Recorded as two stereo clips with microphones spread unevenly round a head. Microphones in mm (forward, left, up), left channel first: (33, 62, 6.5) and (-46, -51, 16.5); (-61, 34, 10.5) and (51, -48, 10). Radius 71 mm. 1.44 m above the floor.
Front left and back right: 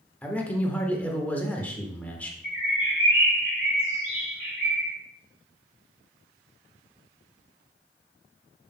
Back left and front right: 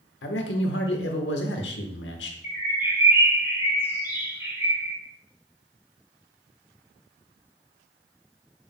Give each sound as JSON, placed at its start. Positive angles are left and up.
{"t": 0.2, "sound": "a man speaking", "azimuth_deg": 135, "distance_m": 1.2}
{"t": 2.4, "sound": "a bird", "azimuth_deg": 40, "distance_m": 4.0}